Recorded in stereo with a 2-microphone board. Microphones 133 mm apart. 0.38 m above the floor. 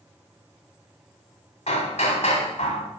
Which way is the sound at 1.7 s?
55° left (ahead or behind).